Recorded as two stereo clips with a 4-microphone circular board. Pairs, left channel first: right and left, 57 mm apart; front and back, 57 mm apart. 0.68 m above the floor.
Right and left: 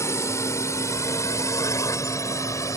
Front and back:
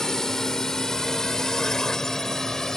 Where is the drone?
80° right.